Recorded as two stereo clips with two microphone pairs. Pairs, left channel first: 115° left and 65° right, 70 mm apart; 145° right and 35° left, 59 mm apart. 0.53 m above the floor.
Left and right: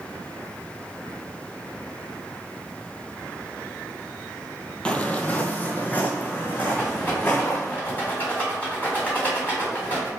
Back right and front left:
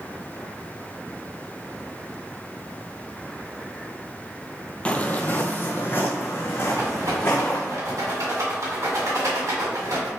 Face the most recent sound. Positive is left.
turn(degrees=50)